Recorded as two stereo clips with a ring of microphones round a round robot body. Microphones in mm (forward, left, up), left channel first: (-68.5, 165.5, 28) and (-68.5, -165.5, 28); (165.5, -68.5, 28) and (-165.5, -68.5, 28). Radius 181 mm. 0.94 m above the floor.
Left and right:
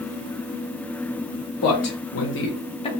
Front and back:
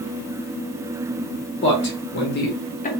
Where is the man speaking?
55° left, 1.7 m; by 2.9 s 35° left, 0.9 m.